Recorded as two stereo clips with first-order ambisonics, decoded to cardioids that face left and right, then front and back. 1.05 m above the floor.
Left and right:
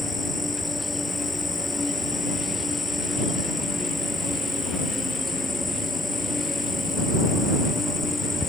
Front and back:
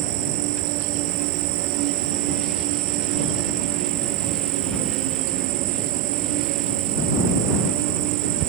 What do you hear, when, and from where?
0.0 s an insect: 170° left